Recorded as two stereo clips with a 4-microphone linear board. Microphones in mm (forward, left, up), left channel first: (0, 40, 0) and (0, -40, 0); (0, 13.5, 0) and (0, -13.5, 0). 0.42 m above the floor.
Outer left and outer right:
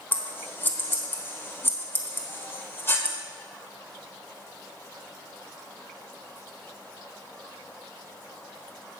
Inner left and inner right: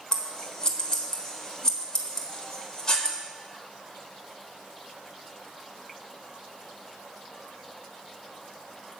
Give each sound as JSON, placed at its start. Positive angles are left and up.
{"t": 0.1, "sound": "scissors", "side_deg": 30, "distance_m": 1.2}